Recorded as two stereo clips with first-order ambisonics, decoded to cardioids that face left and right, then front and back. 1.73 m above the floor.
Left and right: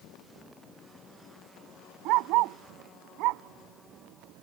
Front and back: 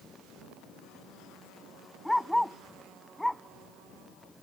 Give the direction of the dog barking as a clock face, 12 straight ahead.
3 o'clock.